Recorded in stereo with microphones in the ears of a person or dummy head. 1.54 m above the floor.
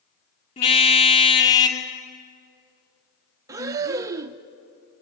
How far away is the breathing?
About 0.6 m.